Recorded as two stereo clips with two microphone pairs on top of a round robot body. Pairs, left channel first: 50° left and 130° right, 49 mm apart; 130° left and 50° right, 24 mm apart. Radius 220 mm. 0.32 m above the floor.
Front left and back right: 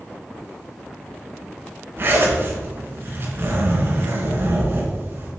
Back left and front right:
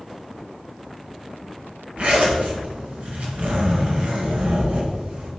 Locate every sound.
2.0 s a zipper: 85° right, 3 m